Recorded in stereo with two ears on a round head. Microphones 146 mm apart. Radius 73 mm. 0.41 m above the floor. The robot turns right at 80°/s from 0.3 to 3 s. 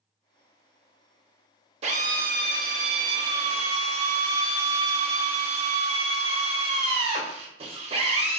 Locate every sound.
1.8 s a drill: 135° right, 0.6 m; by 8.4 s 40° right, 0.6 m